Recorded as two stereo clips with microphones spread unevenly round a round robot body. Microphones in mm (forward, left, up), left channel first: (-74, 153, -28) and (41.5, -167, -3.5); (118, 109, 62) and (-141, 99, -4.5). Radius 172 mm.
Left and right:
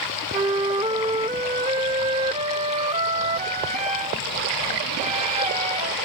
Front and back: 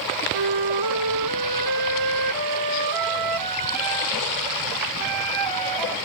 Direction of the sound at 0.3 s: 140° right.